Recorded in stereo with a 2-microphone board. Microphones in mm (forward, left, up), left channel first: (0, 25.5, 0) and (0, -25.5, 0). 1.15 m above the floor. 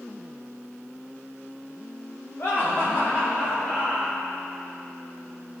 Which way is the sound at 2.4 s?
50° left (ahead or behind).